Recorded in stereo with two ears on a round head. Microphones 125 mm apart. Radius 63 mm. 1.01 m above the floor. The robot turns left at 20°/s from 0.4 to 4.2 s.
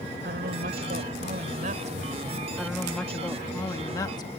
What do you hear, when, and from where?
0.2 s a woman speaking: 95° right; by 2.5 s 135° right
2.6 s a woman speaking: 175° right; by 4.3 s 150° left